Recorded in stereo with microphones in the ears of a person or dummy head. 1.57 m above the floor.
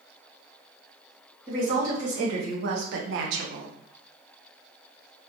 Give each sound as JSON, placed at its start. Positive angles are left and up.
{"t": 1.5, "sound": "a woman speaking", "side_deg": -35, "distance_m": 1.5}